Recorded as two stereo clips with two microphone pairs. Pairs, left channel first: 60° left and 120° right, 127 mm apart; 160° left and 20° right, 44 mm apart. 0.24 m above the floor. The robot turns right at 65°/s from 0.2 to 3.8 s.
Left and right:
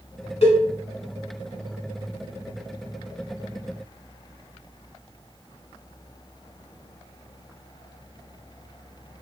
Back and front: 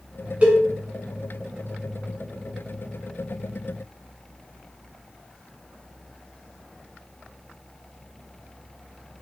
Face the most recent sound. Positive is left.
turn(degrees=-110)